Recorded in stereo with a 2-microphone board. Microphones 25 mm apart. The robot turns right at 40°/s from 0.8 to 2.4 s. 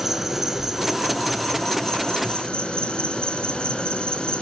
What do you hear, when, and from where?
0.0 s an insect: 5° right, 3 m; by 4.4 s 55° left, 3 m